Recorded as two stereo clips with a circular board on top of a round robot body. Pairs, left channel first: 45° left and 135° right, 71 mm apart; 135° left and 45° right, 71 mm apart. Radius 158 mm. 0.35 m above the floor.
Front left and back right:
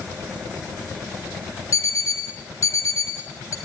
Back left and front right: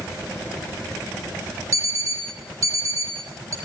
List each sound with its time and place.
1.7 s an alarm clock: straight ahead, 6 m